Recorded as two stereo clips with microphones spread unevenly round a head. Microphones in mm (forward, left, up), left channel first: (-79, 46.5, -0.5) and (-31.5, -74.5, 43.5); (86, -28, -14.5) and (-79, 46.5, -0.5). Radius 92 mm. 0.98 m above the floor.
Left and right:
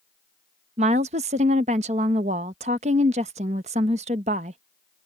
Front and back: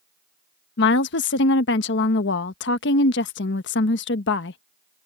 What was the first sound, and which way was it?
A woman speaking, 15° right.